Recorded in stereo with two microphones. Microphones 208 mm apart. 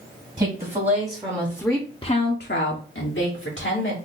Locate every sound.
0.4 s a woman speaking: 35° right (ahead or behind), 1.4 m; by 4.0 s 70° left (ahead or behind), 1.5 m